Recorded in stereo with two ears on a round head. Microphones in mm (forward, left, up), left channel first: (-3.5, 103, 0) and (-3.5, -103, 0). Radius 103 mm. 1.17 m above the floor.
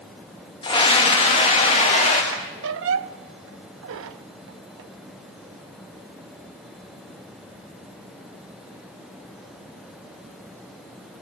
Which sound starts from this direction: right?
A squeak, at 2.3 s.